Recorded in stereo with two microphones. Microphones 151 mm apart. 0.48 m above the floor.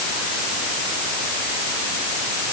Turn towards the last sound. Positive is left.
No sound to turn to.